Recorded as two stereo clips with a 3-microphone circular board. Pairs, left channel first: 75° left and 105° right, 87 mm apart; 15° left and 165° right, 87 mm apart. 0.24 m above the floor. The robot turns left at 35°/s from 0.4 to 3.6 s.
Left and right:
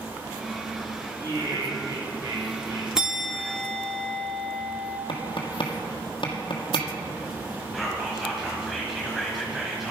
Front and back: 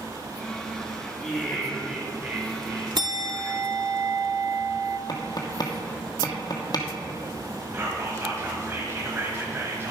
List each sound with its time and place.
1.2 s laughter: 60° right, 2 m; by 2.9 s 120° right, 2 m
3.0 s a bell: 175° left, 0.7 m; by 5.0 s 155° left, 0.7 m
5.1 s tapping: 55° left, 1.3 m
7.7 s whispering: 165° left, 1.2 m